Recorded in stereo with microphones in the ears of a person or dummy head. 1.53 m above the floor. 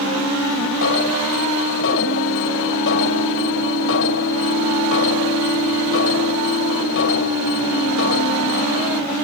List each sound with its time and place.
0.8 s an alarm: 75° left (ahead or behind)